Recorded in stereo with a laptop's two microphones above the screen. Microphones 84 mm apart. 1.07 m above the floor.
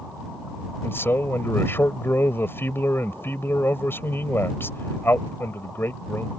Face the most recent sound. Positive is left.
turn(degrees=25)  # may be behind; listen again after turning